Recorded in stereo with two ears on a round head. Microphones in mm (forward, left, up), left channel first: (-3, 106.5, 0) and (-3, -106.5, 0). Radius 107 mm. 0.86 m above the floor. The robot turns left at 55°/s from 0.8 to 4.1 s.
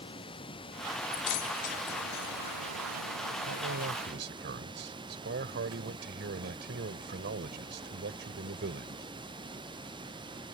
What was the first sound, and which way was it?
Running water, 20° left.